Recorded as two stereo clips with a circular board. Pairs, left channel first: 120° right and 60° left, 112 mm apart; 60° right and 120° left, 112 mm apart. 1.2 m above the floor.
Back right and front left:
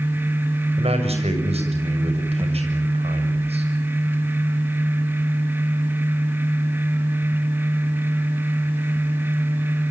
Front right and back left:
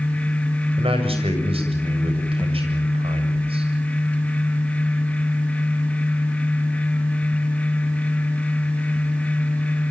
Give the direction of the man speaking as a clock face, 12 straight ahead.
9 o'clock.